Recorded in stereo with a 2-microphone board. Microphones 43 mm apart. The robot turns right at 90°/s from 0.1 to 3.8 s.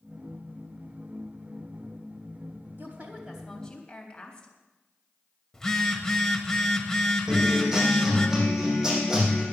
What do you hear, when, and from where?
2.8 s a woman speaking: 65° right, 3.5 m; by 4.5 s 25° left, 3.5 m
5.5 s a phone buzzing: 15° left (ahead or behind), 1.6 m
7.3 s a guitar: 10° right (ahead or behind), 6 m